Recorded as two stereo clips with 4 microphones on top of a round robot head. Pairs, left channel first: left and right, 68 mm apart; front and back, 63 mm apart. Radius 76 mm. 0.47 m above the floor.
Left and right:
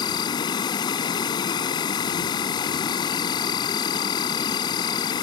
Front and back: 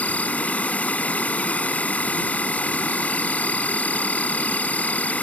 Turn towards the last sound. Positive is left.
turn(degrees=70)